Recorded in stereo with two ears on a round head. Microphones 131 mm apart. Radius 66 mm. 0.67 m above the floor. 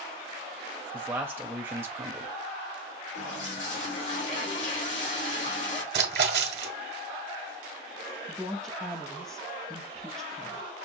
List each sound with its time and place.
0.9 s a man speaking: 20° right (ahead or behind), 0.7 m
3.1 s a toilet flushing: 60° left (ahead or behind), 2 m
5.9 s a splash: 75° right (ahead or behind), 1.4 m
8.3 s a woman speaking: 5° left (ahead or behind), 0.9 m